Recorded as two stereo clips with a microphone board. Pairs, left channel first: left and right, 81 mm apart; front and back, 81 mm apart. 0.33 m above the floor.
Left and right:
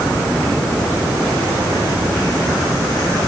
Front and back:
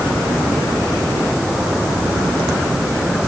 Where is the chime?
No chime in this recording.